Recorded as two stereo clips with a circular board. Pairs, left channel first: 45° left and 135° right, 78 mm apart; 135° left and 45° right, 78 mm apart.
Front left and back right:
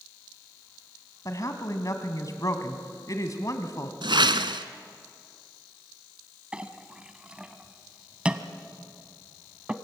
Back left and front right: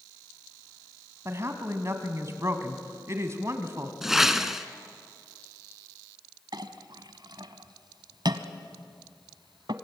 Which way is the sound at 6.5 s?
60° right.